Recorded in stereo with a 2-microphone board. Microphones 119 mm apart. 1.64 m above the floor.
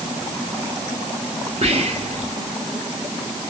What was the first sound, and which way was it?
Whispering, 55° right (ahead or behind).